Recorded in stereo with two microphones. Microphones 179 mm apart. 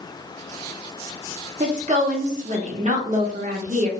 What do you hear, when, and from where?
1.6 s a woman speaking: 40° right (ahead or behind), 0.7 m